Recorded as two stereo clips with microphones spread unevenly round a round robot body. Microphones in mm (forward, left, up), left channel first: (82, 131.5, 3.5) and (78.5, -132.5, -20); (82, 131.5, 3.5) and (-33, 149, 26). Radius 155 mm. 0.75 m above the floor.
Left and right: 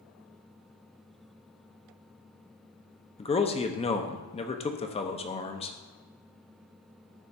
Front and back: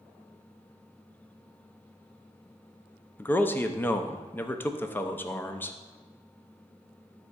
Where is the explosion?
No explosion in this recording.